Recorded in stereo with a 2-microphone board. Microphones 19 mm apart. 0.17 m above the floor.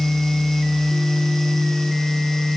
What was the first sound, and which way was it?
Only background noise.